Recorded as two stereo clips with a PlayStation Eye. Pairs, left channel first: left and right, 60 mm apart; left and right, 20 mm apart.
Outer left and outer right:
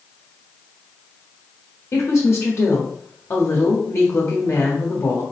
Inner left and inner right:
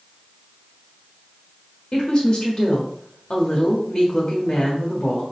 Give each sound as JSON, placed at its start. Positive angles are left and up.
{"t": 1.9, "sound": "a woman speaking", "side_deg": 50, "distance_m": 1.2}